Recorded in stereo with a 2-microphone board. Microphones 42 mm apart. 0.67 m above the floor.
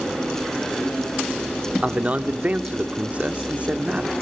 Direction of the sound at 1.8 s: 35° right (ahead or behind).